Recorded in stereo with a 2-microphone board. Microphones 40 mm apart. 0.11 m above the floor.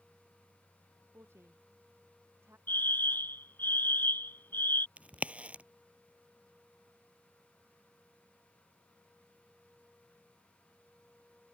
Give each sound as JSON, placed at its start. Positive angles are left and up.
{"t": 1.1, "sound": "a woman speaking", "side_deg": -85}
{"t": 2.7, "sound": "a fire alarm", "side_deg": 55}
{"t": 5.0, "sound": "a crack", "side_deg": -35}